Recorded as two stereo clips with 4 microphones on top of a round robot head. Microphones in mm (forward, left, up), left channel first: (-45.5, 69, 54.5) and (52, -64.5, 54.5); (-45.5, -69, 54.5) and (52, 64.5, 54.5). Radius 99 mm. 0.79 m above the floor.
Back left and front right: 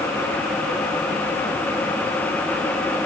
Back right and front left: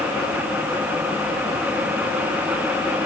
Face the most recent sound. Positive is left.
No sound to turn to.